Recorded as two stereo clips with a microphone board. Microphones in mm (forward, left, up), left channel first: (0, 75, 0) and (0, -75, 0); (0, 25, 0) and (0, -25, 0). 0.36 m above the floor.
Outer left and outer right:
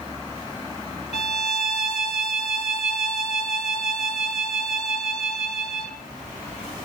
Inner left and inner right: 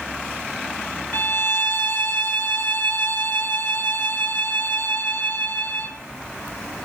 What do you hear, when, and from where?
1.1 s a violin: 45° left (ahead or behind), 2.5 m